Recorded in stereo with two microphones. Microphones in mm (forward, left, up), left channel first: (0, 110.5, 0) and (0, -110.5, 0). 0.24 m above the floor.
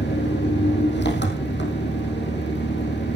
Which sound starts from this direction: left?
An engine running, at 0.0 s.